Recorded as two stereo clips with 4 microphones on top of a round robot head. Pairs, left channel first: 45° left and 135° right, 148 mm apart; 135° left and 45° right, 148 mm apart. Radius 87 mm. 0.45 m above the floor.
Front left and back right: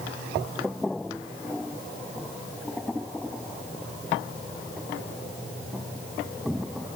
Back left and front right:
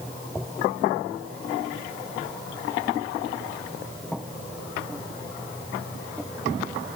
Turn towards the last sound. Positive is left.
No sound to turn to.